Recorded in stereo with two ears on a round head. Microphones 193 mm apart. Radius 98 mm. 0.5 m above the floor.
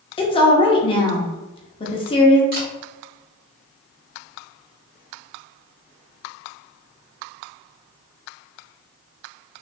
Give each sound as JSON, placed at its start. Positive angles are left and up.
{"t": 0.2, "sound": "a woman speaking", "side_deg": 25, "distance_m": 0.8}
{"t": 2.5, "sound": "a camera shutter", "side_deg": -45, "distance_m": 1.9}